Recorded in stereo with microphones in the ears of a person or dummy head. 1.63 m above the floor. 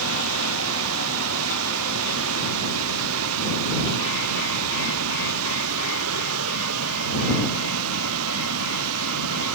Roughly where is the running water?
Right.